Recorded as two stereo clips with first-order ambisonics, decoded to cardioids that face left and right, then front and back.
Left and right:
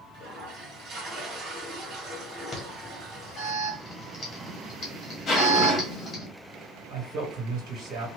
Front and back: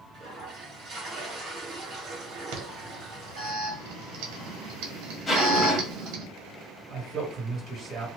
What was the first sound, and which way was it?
A toilet flushing, 125° right.